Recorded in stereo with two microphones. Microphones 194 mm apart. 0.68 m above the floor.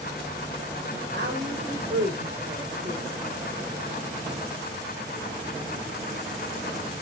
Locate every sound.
1.1 s a woman speaking: 65° right (ahead or behind), 2.5 m; by 3.4 s centre (ahead or behind), 1.4 m